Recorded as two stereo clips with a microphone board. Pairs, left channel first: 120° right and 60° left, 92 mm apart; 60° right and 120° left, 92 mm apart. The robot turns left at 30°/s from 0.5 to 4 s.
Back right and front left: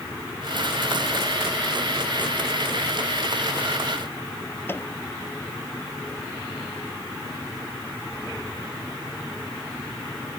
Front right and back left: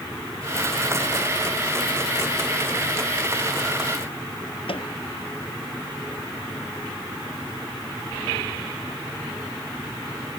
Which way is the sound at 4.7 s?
55° right.